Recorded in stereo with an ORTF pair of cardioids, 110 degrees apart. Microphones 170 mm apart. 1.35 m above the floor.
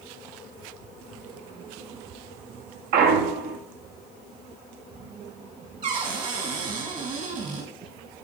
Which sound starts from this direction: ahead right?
A cupboard door, at 5.8 s.